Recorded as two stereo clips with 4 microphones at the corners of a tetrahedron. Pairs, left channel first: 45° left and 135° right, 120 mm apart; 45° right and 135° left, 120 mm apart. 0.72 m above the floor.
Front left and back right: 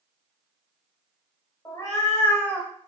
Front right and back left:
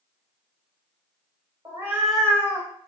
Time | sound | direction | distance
1.6 | a cat meowing | 90° left | 0.6 m